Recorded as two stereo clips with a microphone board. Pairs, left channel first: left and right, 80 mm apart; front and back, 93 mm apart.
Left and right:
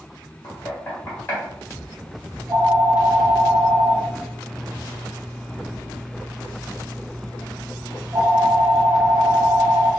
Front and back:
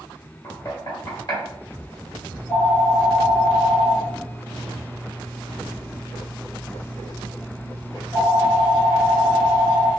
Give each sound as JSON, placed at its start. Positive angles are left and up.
{"t": 0.4, "sound": "knocking", "azimuth_deg": 30, "distance_m": 1.5}
{"t": 2.3, "sound": "a phone ringing", "azimuth_deg": -75, "distance_m": 1.1}